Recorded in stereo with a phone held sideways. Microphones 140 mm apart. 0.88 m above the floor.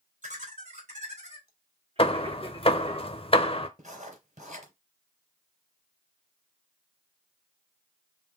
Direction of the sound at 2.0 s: 40° left (ahead or behind).